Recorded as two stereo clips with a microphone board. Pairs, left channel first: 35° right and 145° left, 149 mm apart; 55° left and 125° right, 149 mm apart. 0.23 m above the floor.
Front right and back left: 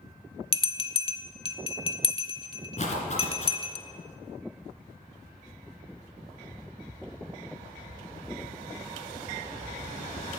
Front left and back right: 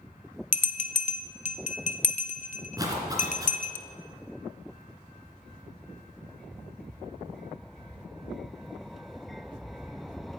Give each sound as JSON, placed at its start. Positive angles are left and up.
{"t": 0.5, "sound": "a bell", "azimuth_deg": 20, "distance_m": 0.5}
{"t": 2.8, "sound": "a zipper", "azimuth_deg": -65, "distance_m": 2.5}